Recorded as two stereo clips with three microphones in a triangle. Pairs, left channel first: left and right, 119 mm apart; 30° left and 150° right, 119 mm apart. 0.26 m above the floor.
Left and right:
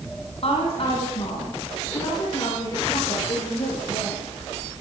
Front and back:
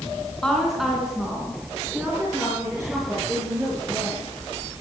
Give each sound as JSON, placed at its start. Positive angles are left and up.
{"t": 0.4, "sound": "a woman speaking", "azimuth_deg": 115, "distance_m": 3.0}